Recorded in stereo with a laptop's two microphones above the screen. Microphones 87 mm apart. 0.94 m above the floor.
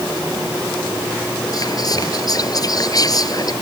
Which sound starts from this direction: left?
Whispering, at 1.5 s.